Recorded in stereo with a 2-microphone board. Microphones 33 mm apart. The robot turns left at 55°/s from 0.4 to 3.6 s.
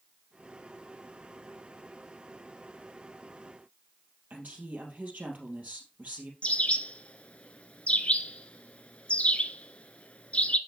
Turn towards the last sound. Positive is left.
turn(degrees=40)  # may be behind; listen again after turning